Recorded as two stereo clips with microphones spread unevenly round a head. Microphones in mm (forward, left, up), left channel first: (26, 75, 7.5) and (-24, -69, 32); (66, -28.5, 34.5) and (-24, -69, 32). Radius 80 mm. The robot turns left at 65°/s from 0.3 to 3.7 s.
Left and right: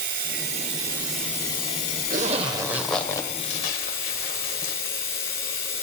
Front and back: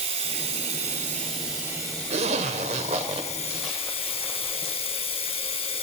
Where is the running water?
140° right, 1.7 m; by 5.8 s 5° right, 1.7 m.